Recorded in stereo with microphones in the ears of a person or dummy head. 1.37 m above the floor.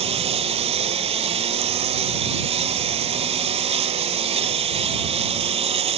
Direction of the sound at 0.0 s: 35° right (ahead or behind).